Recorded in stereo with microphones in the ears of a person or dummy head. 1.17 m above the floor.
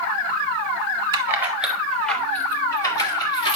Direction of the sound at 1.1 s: 20° right (ahead or behind).